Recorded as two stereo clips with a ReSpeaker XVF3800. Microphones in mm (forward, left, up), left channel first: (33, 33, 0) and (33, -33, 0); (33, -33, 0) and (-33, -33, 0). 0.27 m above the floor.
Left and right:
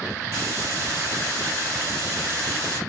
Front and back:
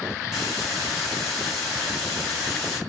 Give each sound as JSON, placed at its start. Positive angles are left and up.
{"t": 0.3, "sound": "a hiss", "azimuth_deg": -90, "distance_m": 1.4}